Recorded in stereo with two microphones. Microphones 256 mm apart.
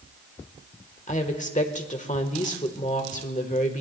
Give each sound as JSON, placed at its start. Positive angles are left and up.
{"t": 1.1, "sound": "a woman speaking", "side_deg": 30, "distance_m": 1.3}